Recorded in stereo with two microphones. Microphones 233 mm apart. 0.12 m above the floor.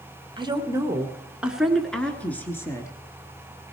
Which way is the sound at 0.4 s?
20° right (ahead or behind).